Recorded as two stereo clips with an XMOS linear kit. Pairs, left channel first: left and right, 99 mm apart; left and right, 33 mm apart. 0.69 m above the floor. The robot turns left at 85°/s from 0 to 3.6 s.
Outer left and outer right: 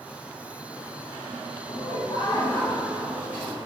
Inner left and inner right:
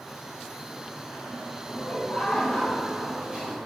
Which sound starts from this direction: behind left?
Laughter, at 1.7 s.